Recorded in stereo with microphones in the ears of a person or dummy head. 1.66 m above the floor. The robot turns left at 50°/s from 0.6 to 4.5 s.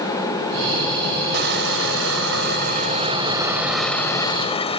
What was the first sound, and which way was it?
Crushing, 60° right.